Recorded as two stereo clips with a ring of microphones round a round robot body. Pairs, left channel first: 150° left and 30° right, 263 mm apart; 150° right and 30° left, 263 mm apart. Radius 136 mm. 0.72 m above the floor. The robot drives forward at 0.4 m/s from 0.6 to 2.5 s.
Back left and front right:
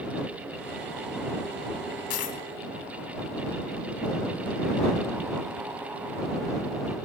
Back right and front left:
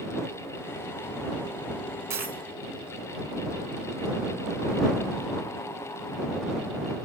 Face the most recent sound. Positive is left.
turn(degrees=120)